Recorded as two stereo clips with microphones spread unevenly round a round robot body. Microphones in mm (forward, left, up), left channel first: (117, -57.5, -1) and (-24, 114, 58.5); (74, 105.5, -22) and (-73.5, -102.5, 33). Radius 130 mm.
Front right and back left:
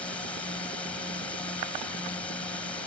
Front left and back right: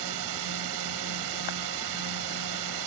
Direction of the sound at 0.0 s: 130° right.